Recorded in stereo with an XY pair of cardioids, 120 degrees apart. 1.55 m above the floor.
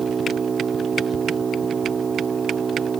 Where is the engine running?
30° right.